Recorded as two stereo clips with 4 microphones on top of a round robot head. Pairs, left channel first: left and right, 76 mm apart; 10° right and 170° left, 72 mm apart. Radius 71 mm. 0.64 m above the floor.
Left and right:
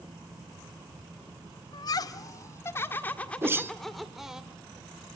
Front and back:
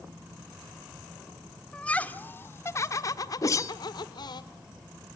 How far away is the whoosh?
About 1.2 m.